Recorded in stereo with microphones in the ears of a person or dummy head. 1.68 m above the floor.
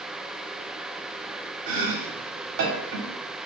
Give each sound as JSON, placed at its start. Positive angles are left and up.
{"t": 1.7, "sound": "chopping", "side_deg": -65, "distance_m": 1.2}